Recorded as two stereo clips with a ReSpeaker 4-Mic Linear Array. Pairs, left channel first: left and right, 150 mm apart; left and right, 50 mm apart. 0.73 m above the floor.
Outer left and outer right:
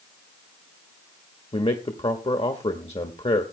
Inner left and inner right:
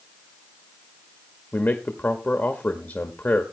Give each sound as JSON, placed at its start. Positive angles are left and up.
{"t": 1.5, "sound": "a man speaking", "side_deg": 45, "distance_m": 1.2}